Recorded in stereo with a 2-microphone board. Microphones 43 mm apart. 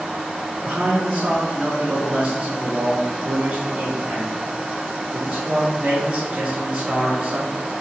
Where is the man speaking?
25° right (ahead or behind), 3.5 m.